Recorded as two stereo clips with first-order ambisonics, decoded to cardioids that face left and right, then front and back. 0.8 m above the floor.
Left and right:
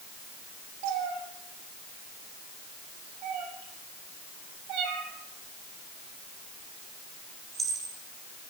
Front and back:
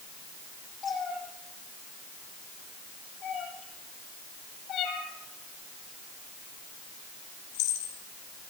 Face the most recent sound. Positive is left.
turn(degrees=-10)